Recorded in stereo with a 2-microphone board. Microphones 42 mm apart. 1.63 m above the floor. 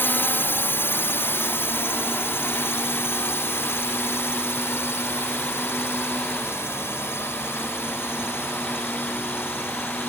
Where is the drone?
60° left (ahead or behind); by 10.1 s 80° left.